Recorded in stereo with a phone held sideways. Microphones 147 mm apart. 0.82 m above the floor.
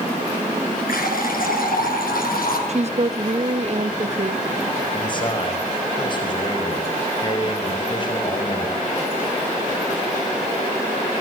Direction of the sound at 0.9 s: 80° left.